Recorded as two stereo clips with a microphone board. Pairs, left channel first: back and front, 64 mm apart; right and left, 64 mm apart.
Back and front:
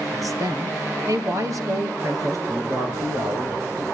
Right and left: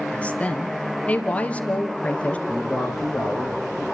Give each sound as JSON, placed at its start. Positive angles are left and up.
{"t": 0.1, "sound": "a woman speaking", "azimuth_deg": -20, "distance_m": 3.0}
{"t": 2.5, "sound": "a man speaking", "azimuth_deg": 10, "distance_m": 7.0}